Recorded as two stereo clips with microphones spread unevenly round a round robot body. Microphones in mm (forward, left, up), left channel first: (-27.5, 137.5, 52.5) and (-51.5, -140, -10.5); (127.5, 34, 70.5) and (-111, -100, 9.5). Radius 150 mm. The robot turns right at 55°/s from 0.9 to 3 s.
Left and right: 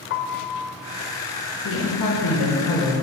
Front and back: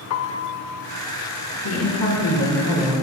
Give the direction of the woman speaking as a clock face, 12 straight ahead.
11 o'clock.